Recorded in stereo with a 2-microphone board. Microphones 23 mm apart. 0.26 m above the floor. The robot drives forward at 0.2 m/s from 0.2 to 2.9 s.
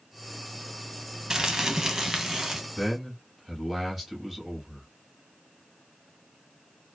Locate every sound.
1.3 s crumpling: 25° right (ahead or behind), 0.6 m; by 2.6 s 20° right (ahead or behind), 0.8 m
2.8 s a man speaking: 5° right (ahead or behind), 1.1 m